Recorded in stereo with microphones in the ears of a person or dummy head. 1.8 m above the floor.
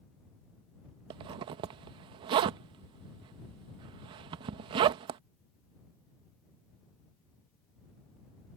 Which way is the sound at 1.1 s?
25° right (ahead or behind).